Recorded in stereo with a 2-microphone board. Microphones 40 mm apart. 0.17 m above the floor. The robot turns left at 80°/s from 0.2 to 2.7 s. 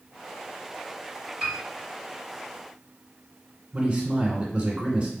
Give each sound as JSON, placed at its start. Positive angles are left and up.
{"t": 1.4, "sound": "a piano", "side_deg": -25, "distance_m": 2.0}
{"t": 3.7, "sound": "a man speaking", "side_deg": -35, "distance_m": 1.4}